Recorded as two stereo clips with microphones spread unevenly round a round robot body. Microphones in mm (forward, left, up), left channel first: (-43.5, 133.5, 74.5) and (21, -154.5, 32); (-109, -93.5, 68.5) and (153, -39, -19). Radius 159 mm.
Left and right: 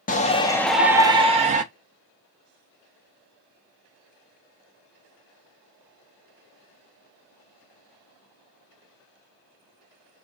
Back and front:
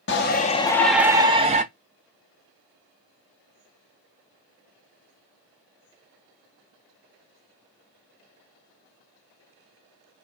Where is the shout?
155° left, 0.6 m; by 1.6 s 25° right, 0.8 m.